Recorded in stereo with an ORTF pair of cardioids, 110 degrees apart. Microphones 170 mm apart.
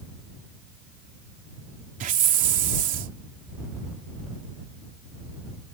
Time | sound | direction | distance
2.0 | a hiss | 55° right | ?